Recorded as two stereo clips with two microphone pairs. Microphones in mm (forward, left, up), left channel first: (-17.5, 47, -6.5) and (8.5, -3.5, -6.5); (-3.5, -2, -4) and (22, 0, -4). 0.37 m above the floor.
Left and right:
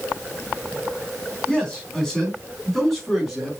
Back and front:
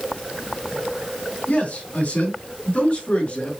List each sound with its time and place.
1.5 s a man speaking: 170° right, 4 m; by 3.5 s 150° right, 4 m